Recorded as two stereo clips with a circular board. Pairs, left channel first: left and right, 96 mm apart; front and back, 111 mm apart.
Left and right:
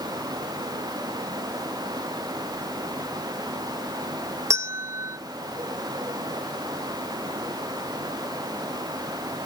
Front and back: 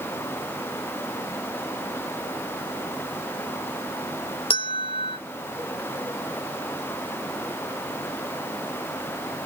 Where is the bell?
35° right, 0.8 m.